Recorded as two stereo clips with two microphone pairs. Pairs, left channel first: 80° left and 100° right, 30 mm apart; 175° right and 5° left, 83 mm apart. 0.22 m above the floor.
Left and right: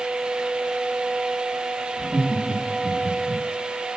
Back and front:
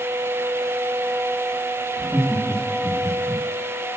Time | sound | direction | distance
2.0 | laughter | 10° left | 1.5 m